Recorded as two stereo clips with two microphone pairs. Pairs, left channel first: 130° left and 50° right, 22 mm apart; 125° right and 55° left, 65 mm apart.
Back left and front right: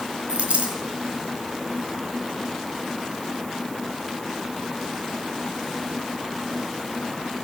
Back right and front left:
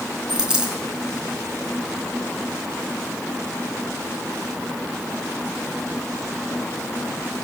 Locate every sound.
0.3 s a dropped coin: 25° right, 3.5 m